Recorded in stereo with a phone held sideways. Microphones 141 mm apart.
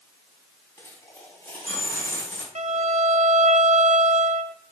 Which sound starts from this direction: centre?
A dropped coin, at 0.8 s.